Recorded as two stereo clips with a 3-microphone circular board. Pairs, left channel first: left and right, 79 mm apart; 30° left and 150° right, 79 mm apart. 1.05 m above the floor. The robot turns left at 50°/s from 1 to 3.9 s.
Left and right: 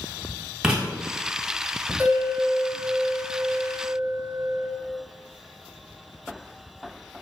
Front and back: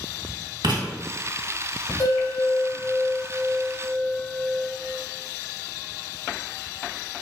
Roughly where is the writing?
Behind.